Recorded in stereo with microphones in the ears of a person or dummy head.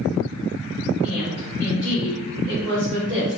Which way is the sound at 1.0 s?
Centre (ahead or behind).